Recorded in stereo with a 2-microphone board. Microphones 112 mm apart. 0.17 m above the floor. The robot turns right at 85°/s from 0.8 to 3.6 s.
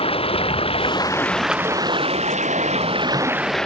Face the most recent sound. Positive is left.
turn(degrees=5)